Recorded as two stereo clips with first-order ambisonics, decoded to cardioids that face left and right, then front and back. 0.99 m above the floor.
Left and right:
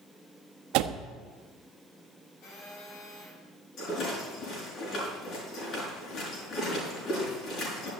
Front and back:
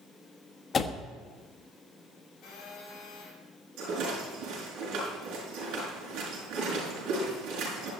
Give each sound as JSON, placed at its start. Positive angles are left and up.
{"t": 0.7, "sound": "a door slam", "azimuth_deg": -70, "distance_m": 1.2}
{"t": 2.4, "sound": "a phone buzzing", "azimuth_deg": 55, "distance_m": 8.0}
{"t": 3.8, "sound": "a rattle", "azimuth_deg": 140, "distance_m": 6.0}